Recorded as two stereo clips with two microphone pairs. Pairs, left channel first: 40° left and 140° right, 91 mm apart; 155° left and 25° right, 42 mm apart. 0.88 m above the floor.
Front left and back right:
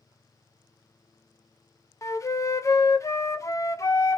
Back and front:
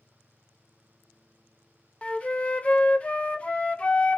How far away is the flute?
About 0.5 m.